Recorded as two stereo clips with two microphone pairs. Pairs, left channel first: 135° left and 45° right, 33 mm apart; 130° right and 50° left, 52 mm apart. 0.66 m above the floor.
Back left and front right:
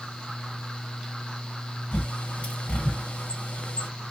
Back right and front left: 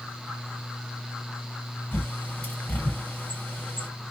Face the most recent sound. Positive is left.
turn(degrees=175)